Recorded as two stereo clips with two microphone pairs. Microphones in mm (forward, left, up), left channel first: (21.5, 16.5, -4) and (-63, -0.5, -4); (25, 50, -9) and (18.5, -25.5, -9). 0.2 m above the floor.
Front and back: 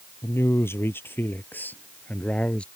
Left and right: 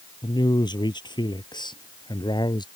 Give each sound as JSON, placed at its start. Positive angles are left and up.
{"t": 0.2, "sound": "a man speaking", "azimuth_deg": 70}